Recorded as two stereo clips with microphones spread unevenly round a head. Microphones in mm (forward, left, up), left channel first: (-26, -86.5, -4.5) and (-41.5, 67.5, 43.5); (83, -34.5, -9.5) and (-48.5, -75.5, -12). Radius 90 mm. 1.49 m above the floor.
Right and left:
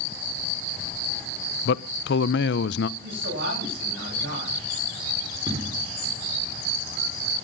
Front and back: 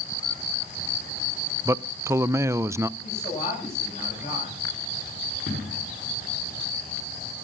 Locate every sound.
1.6 s a man speaking: 95° right, 0.7 m
3.0 s a man speaking: 70° left, 8.5 m
5.5 s an explosion: 35° left, 4.5 m